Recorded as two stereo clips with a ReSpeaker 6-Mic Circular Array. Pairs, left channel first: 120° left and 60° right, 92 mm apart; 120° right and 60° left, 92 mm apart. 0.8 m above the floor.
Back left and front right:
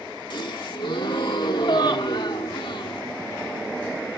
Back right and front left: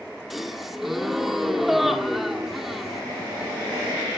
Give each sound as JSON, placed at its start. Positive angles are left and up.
{"t": 0.3, "sound": "a gasp", "azimuth_deg": 150, "distance_m": 1.8}